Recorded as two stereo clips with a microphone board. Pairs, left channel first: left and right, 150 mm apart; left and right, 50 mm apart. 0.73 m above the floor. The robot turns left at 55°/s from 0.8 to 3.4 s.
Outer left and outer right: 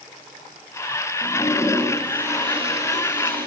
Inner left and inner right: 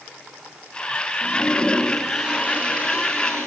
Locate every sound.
1.2 s a toilet flushing: 40° left, 4.5 m; by 3.5 s 80° right, 4.5 m